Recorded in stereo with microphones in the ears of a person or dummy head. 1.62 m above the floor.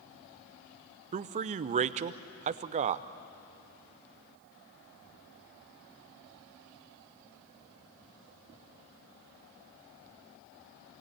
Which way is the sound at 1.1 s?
35° right (ahead or behind).